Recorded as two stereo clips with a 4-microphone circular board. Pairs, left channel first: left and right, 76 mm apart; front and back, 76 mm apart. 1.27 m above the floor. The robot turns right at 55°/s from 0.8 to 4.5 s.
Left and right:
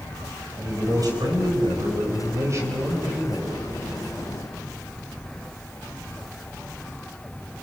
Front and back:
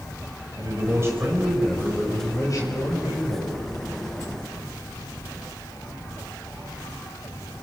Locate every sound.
0.6 s a man speaking: 135° right, 6 m; by 3.6 s 15° left, 6 m